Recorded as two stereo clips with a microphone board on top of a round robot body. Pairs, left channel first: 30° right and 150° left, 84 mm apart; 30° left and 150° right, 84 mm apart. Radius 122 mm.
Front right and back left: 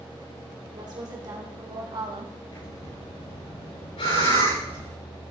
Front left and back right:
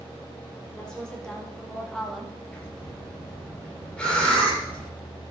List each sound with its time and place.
0.7 s a woman speaking: 110° left, 4 m; by 2.4 s 125° left, 1.7 m
2.5 s breathing: 45° right, 8.5 m